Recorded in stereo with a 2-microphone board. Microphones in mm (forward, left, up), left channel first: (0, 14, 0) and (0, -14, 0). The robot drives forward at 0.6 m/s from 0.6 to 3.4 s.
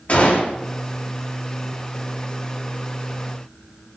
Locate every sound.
0.1 s a gunshot: 60° left (ahead or behind), 10 m